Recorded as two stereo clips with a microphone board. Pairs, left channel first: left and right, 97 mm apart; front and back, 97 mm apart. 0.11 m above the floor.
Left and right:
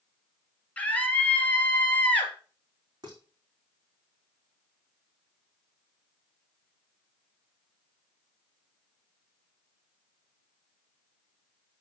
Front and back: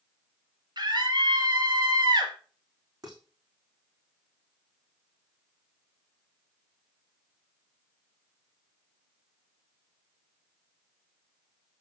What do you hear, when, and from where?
0.8 s a scream: 160° left, 2 m
3.0 s dishes clattering: 135° right, 3.5 m